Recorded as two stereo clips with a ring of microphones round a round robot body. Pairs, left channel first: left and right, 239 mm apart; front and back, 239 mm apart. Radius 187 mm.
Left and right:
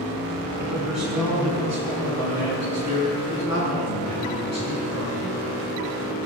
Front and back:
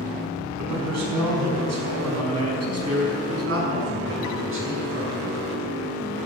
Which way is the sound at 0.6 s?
175° right.